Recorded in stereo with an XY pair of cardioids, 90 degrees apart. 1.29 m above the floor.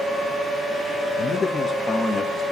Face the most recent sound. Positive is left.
turn(degrees=25)